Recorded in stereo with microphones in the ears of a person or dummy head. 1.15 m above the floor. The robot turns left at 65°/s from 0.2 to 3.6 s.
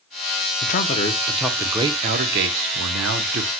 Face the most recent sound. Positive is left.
turn(degrees=-140)